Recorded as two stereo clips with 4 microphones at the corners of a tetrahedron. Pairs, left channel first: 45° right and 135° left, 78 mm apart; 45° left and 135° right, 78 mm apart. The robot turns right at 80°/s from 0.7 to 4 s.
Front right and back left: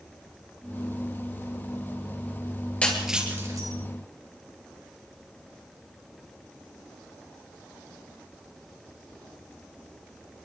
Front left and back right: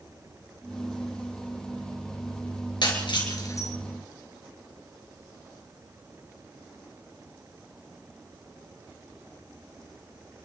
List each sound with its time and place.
2.8 s breaking glass: 30° left, 4.5 m; by 3.7 s 100° left, 4.5 m